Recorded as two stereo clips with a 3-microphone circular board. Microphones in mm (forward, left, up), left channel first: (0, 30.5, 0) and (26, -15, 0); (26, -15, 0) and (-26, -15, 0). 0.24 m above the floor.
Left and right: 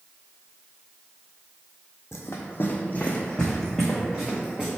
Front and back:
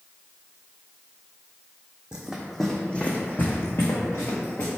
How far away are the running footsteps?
About 0.6 m.